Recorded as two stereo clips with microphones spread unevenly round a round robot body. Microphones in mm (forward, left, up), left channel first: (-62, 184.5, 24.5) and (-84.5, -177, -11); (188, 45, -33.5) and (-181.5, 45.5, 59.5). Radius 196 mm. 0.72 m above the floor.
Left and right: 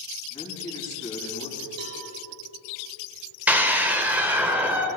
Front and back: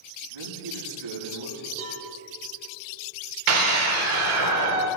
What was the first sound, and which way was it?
A man speaking, 170° left.